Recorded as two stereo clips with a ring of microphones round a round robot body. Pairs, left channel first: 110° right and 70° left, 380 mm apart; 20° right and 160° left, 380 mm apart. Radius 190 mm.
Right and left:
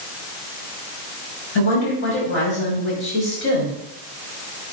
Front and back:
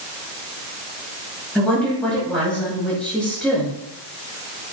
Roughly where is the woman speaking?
Right.